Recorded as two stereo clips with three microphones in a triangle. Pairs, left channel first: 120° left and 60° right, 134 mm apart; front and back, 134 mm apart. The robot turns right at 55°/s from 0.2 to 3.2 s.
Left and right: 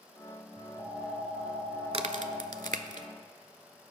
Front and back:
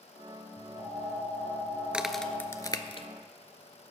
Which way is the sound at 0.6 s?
15° right.